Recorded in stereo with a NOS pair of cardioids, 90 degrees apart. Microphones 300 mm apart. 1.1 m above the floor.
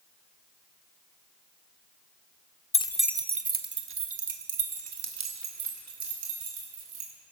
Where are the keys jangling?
20° left, 0.8 m; by 7.1 s 65° right, 5 m.